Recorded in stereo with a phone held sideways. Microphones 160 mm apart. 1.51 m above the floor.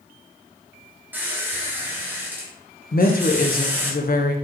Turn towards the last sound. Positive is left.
turn(degrees=65)  # may be behind; listen again after turning